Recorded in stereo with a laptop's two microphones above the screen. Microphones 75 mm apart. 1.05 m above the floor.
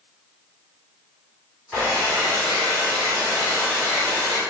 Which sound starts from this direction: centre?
A hair dryer, at 1.7 s.